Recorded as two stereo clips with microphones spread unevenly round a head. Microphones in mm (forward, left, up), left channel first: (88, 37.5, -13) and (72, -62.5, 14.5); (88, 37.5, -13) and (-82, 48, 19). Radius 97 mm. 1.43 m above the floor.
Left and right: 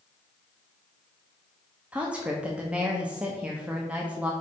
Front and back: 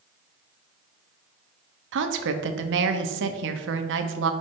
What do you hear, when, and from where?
1.9 s a woman speaking: 170° left, 0.8 m